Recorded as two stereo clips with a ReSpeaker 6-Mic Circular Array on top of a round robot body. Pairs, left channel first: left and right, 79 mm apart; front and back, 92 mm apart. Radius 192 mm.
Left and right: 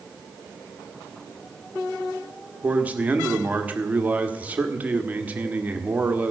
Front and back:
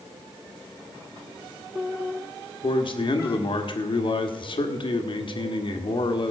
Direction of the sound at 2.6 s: 20° right.